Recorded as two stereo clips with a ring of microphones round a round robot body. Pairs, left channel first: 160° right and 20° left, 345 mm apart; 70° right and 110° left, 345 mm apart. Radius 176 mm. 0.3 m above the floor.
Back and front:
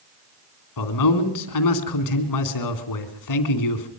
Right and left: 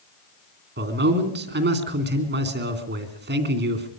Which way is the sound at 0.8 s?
170° left.